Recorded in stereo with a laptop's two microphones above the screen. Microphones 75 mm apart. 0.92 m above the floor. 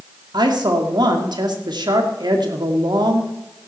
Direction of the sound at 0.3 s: 70° right (ahead or behind).